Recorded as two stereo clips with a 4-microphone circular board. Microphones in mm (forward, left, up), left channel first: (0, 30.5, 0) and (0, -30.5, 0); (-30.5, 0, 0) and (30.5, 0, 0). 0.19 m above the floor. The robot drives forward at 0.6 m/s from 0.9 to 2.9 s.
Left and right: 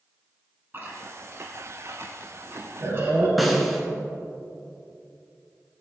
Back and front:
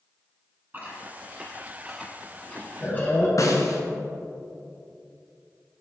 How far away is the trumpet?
No trumpet in this recording.